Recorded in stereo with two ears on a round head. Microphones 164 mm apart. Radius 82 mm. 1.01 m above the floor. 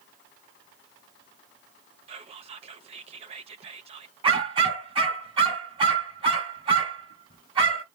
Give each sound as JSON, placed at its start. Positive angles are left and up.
{"t": 2.1, "sound": "whispering", "side_deg": -35, "distance_m": 0.9}
{"t": 4.2, "sound": "a dog barking", "side_deg": -30, "distance_m": 1.9}